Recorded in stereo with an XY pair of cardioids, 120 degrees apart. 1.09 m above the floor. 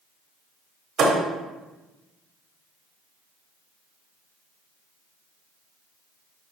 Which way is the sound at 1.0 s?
65° right.